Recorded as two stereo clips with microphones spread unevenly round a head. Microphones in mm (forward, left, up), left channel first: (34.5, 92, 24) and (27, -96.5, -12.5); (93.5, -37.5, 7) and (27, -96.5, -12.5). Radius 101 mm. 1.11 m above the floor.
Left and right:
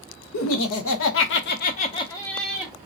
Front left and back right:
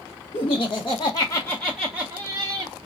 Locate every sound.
0.3 s laughter: 90° left, 1.2 m; by 2.7 s 165° right, 0.9 m